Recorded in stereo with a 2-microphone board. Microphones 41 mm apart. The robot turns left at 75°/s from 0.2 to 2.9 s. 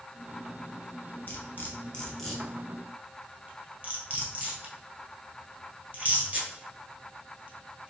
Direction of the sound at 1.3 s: 55° left (ahead or behind).